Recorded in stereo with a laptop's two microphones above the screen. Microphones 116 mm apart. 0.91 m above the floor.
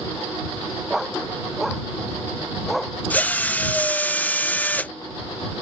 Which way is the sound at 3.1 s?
15° left (ahead or behind).